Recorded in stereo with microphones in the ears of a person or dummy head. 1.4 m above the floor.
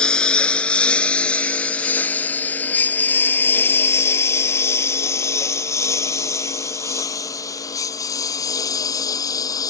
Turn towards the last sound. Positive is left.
turn(degrees=15)  # may be behind; listen again after turning